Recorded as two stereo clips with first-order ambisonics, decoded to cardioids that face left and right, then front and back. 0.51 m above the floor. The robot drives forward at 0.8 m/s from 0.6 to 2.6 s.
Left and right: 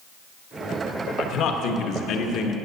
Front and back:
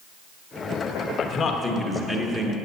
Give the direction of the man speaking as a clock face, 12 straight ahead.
10 o'clock.